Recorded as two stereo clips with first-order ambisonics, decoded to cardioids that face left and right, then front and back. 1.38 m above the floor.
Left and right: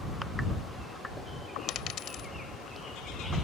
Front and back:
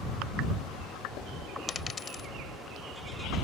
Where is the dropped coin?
65° left.